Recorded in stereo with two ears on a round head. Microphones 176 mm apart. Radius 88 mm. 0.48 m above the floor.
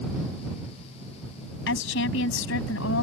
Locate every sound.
1.7 s a woman speaking: 70° left (ahead or behind); by 3.0 s 75° left (ahead or behind)